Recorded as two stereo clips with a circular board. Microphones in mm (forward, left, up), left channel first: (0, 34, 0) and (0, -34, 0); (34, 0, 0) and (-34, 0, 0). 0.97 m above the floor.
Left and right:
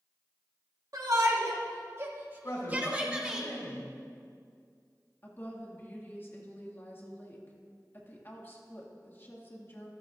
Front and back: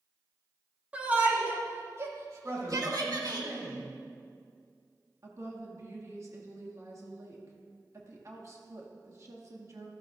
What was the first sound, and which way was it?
A shout, 110° right.